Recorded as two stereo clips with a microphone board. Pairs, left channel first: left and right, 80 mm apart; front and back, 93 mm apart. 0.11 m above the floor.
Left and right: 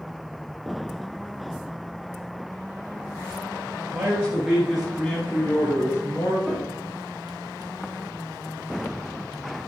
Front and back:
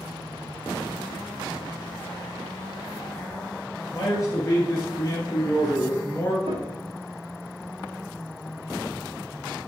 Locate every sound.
3.9 s a man speaking: 40° right, 1.4 m; by 6.4 s 60° left, 1.6 m
6.5 s a piano: straight behind, 1.1 m